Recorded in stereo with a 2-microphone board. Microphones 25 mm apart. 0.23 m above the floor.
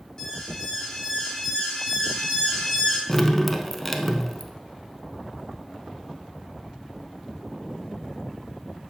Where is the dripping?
5° left (ahead or behind), 0.6 m.